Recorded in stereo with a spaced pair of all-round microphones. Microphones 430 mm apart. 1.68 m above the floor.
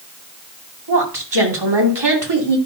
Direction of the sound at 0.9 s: 85° right.